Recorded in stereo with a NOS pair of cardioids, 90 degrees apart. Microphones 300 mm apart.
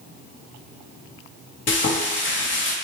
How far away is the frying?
About 0.9 m.